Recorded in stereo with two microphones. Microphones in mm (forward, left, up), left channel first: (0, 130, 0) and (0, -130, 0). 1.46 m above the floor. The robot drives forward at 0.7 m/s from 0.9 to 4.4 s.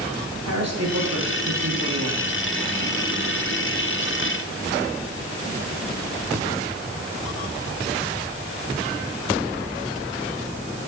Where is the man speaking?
80° right, 3.5 m.